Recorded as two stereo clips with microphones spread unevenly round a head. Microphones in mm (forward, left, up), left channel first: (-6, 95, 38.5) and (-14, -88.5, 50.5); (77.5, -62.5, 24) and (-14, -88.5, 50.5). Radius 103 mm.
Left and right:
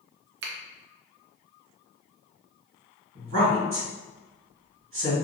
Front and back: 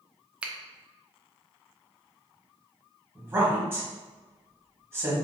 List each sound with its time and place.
0.4 s a finger snap: 80° right, 0.6 m
3.1 s a woman speaking: 95° right, 1.5 m